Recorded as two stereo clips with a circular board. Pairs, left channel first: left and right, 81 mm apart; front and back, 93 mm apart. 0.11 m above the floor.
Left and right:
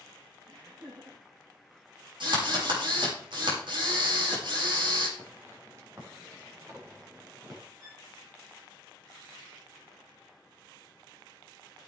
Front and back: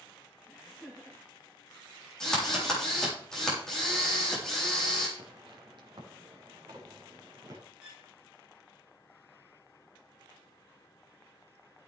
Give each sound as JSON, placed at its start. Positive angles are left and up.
{"t": 0.5, "sound": "laughter", "azimuth_deg": -85, "distance_m": 6.5}
{"t": 2.2, "sound": "a drill", "azimuth_deg": -85, "distance_m": 6.5}
{"t": 5.2, "sound": "footsteps", "azimuth_deg": -150, "distance_m": 3.5}
{"t": 7.8, "sound": "a violin", "azimuth_deg": -100, "distance_m": 7.0}